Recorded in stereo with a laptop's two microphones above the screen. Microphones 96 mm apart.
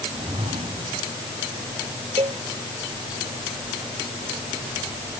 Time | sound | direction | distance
0.1 | a whoosh | 85° right | ?
2.2 | a cowbell | 70° right (ahead or behind) | ?